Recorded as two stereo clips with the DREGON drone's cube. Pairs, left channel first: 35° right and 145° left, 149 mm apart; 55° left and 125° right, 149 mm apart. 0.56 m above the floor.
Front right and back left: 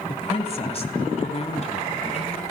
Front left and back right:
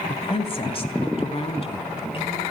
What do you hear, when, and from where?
0.1 s a woman speaking: 10° left, 2 m; by 2.4 s 5° left, 5 m